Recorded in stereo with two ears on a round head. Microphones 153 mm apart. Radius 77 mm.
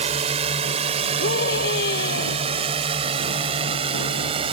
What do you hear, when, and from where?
0.0 s a drone: 35° right (ahead or behind); by 4.5 s 30° right (ahead or behind)
1.2 s a scream: 70° left (ahead or behind)